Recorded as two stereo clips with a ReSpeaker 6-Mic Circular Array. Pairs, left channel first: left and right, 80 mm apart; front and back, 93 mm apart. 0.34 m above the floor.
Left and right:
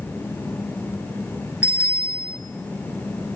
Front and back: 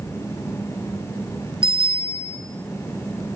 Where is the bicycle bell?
160° right, 3.5 m.